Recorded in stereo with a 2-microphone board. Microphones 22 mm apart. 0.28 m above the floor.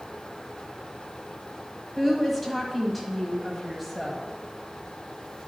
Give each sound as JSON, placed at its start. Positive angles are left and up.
{"t": 2.0, "sound": "a woman speaking", "side_deg": 5, "distance_m": 1.4}